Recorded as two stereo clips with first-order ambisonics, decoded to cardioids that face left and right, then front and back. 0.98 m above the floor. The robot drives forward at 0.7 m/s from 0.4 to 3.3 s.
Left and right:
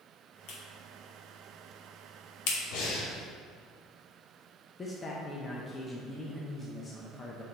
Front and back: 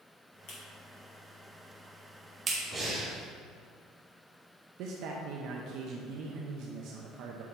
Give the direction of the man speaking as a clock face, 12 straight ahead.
7 o'clock.